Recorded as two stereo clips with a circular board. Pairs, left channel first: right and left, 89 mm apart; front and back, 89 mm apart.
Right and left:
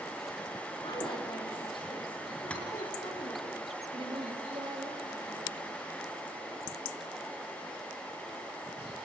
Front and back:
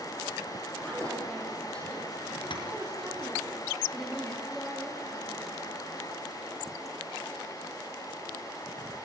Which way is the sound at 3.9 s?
90° left.